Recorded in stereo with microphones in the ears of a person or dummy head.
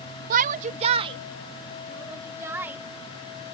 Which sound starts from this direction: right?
A shout, at 0.3 s.